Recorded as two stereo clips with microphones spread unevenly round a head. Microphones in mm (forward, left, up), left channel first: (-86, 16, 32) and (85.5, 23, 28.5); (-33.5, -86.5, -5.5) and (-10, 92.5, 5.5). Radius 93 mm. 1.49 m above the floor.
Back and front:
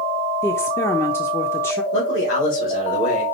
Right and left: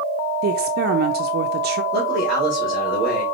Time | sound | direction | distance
0.4 | a woman speaking | 110° left | 0.5 m
1.9 | a man speaking | 175° left | 3 m